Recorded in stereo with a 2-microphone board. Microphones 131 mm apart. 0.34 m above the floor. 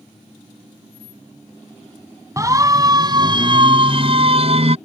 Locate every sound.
2.4 s a siren: 25° right (ahead or behind); by 4.8 s 55° right (ahead or behind)